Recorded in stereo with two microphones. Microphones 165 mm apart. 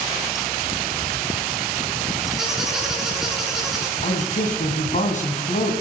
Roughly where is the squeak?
Centre.